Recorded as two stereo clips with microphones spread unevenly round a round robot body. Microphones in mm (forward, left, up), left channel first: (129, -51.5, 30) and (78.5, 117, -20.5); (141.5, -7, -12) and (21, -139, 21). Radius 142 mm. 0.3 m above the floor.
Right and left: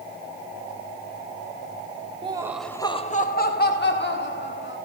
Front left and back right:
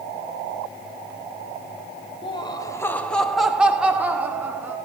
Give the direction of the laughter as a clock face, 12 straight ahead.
9 o'clock.